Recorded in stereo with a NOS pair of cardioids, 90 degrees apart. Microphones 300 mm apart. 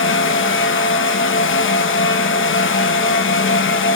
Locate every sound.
0.0 s a fan: 40° left, 1.3 m